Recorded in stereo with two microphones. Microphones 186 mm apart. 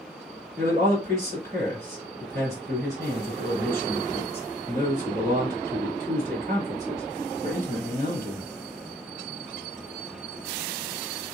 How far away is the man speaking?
About 2 m.